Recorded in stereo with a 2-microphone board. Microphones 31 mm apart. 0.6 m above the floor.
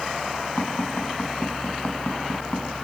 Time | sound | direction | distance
0.6 | tapping | 80° left | 4.5 m